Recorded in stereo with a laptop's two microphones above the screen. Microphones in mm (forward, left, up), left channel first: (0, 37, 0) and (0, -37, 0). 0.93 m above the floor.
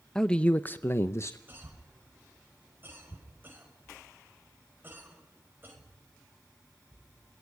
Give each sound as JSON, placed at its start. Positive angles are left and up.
{"t": 0.1, "sound": "a man speaking", "side_deg": 10, "distance_m": 0.8}
{"t": 1.5, "sound": "a cough", "side_deg": -30, "distance_m": 5.5}